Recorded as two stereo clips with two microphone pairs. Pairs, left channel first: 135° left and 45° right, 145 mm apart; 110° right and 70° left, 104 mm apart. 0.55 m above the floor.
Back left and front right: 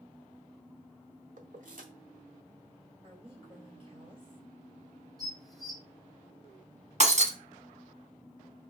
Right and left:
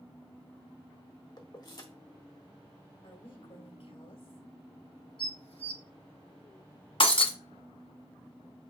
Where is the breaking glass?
80° right, 1.0 m.